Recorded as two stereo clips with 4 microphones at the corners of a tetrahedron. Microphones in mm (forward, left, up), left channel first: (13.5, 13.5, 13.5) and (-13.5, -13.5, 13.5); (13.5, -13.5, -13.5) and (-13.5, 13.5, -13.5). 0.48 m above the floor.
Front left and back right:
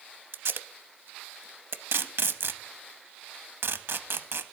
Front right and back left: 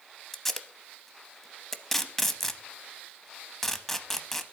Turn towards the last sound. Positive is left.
turn(degrees=-130)